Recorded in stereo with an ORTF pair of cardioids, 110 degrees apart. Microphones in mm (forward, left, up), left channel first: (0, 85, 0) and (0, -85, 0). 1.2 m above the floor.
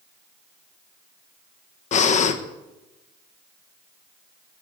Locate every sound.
1.9 s breathing: 50° left, 1.1 m